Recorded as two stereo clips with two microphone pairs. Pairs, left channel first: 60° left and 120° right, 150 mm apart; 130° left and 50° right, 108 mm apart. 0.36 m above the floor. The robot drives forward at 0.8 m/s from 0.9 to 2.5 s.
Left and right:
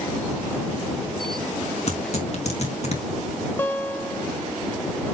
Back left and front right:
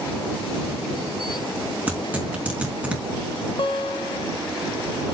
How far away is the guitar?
About 1.1 m.